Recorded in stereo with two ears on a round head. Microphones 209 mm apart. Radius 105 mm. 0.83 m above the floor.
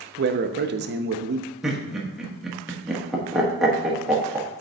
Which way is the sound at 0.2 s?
45° right (ahead or behind).